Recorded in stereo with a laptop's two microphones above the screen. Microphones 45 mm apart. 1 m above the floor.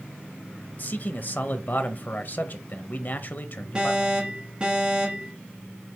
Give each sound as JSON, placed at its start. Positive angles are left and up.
{"t": 0.8, "sound": "a man speaking", "side_deg": 45, "distance_m": 0.7}
{"t": 3.8, "sound": "an alarm", "side_deg": -25, "distance_m": 1.7}